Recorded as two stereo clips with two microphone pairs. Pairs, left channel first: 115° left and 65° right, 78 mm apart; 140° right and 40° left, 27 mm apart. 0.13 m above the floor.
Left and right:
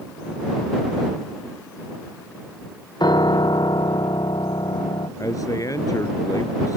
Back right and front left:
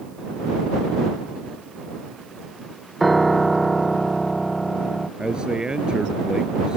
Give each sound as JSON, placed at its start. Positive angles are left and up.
{"t": 3.0, "sound": "a piano", "azimuth_deg": 135}
{"t": 5.2, "sound": "a man speaking", "azimuth_deg": 90}